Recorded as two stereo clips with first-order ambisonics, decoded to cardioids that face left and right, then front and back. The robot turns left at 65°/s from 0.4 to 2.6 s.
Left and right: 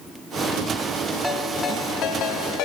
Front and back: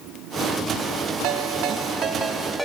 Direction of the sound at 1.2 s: 175° right.